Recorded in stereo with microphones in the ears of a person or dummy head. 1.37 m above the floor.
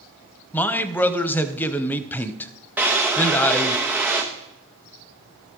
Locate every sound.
0.5 s a man speaking: 10° left (ahead or behind), 0.6 m
2.8 s a drawer: 5° right (ahead or behind), 0.9 m